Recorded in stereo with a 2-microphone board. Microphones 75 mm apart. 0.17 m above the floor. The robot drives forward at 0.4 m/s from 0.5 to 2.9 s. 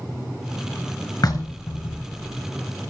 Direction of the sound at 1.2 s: 60° left (ahead or behind).